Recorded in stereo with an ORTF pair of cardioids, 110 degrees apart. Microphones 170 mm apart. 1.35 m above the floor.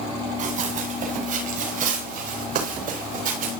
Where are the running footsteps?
50° right, 8.5 m; by 3.6 s 55° right, 10 m.